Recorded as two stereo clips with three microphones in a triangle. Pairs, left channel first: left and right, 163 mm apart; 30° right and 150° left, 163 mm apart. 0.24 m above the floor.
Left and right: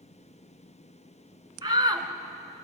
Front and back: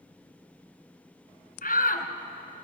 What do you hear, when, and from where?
1.6 s a shout: 30° right, 2.5 m